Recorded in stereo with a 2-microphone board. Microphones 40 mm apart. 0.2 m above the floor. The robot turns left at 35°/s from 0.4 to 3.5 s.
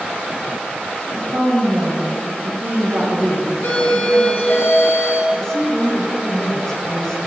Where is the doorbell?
65° left (ahead or behind), 4.5 m.